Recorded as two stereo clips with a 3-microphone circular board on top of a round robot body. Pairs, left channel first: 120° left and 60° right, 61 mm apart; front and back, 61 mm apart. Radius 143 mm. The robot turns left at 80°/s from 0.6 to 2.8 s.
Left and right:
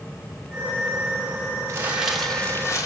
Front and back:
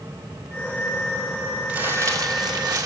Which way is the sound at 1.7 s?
110° right.